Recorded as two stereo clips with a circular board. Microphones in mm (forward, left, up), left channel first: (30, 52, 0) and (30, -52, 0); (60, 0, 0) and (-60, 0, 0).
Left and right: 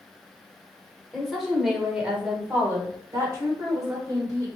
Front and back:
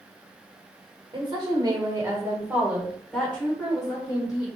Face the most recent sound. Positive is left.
turn(degrees=-50)